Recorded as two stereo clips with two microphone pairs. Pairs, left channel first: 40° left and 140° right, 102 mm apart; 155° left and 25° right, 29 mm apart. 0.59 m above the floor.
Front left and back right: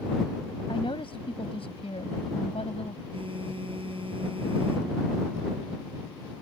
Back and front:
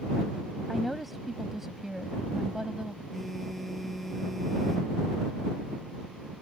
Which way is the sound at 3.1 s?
115° right.